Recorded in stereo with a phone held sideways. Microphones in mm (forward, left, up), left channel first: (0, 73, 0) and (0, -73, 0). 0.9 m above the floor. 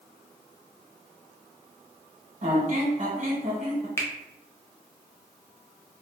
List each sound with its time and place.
2.4 s a squeak: 50° right (ahead or behind), 0.8 m
4.0 s a finger snap: 15° left (ahead or behind), 0.5 m